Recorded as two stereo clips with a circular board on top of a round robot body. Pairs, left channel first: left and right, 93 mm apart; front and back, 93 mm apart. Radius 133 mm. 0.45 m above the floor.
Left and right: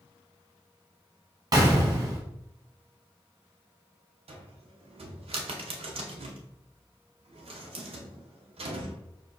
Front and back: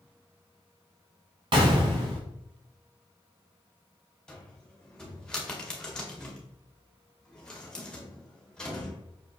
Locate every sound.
1.5 s a gunshot: 140° right, 0.6 m
4.3 s a cupboard door: 80° right, 0.8 m